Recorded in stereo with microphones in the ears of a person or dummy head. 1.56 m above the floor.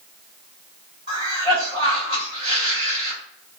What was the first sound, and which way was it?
A cough, 25° right (ahead or behind).